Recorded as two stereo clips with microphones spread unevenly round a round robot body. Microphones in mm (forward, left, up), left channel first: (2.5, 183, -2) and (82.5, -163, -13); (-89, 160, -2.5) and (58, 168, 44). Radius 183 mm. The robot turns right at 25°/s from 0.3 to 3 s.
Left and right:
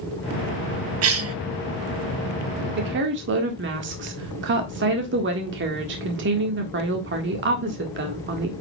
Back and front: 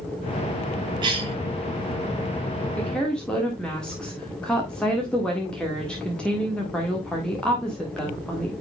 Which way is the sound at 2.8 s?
125° right.